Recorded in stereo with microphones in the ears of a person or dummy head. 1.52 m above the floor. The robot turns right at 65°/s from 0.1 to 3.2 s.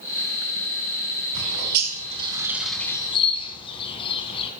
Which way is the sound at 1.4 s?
75° right (ahead or behind).